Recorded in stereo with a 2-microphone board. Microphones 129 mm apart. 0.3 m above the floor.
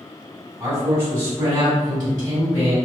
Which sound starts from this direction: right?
A man speaking, at 0.6 s.